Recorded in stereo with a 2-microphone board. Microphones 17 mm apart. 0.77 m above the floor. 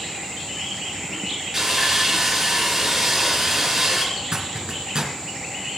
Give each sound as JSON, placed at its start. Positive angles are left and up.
{"t": 1.5, "sound": "sawing", "side_deg": -20, "distance_m": 5.5}
{"t": 4.2, "sound": "a zipper", "side_deg": -60, "distance_m": 3.0}